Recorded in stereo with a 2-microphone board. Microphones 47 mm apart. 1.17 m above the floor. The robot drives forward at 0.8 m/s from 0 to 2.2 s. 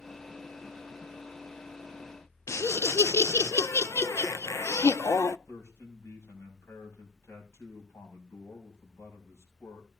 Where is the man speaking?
70° left (ahead or behind), 6.5 m.